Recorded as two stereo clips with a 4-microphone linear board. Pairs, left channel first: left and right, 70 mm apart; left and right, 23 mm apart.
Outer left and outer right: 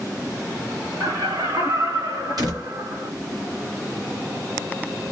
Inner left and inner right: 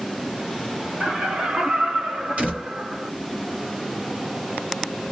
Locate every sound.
1.0 s laughter: 65° right (ahead or behind), 2 m
2.4 s a door slam: 70° right (ahead or behind), 2.5 m